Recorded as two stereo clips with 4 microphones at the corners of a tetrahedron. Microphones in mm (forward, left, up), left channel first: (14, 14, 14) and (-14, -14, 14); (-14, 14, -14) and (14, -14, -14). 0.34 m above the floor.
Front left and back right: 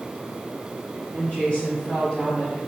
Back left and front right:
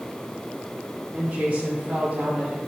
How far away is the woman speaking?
About 1.6 m.